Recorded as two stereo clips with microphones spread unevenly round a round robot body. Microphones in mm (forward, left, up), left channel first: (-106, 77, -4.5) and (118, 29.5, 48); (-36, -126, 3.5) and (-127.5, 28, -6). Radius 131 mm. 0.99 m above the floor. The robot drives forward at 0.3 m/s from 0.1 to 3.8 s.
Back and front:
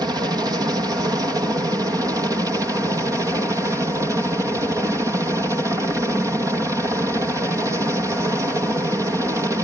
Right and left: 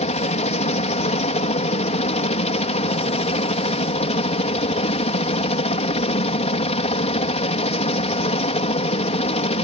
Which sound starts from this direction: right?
A helicopter, at 0.0 s.